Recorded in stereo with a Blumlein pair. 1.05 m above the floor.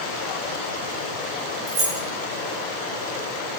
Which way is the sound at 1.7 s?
35° right.